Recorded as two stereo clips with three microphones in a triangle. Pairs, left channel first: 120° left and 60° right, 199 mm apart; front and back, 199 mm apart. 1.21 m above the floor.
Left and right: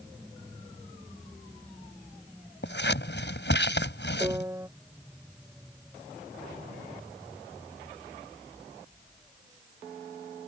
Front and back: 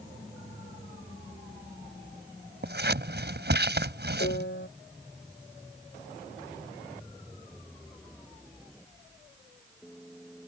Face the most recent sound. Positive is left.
turn(degrees=15)